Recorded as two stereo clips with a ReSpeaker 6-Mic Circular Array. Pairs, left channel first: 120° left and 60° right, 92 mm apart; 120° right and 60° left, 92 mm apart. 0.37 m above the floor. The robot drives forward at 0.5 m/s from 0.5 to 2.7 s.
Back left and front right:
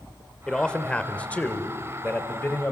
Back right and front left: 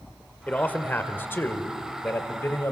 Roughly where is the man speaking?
Behind.